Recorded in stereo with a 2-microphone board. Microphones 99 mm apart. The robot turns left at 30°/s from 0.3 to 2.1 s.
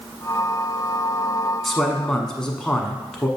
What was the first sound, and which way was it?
A man speaking, centre (ahead or behind).